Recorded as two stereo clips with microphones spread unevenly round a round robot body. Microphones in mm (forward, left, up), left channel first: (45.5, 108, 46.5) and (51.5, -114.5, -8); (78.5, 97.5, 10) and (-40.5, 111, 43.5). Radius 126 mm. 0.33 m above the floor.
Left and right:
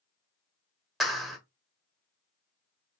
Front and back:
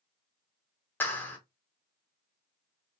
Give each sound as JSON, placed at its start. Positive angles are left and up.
{"t": 1.0, "sound": "a clap", "azimuth_deg": -20, "distance_m": 0.9}